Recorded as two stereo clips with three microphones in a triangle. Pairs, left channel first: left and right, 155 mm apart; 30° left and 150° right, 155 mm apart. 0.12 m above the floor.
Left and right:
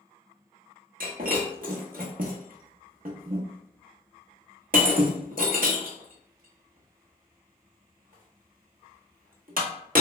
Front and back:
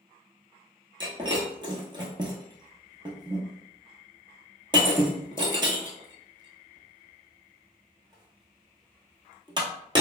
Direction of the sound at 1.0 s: 90° right.